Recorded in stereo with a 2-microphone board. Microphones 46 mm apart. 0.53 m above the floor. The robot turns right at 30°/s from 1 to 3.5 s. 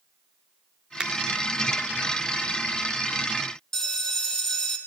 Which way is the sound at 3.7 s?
10° left (ahead or behind).